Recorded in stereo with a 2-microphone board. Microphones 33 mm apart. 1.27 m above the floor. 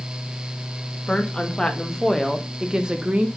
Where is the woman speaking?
30° left (ahead or behind), 1.8 m; by 3.3 s 45° right (ahead or behind), 1.2 m.